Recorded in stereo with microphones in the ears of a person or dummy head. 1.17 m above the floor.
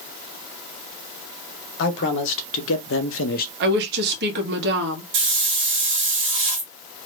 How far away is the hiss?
About 0.6 m.